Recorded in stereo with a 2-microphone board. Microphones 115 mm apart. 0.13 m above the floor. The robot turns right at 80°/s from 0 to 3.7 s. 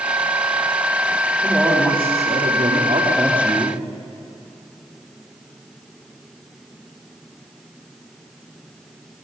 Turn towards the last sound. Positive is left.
turn(degrees=10)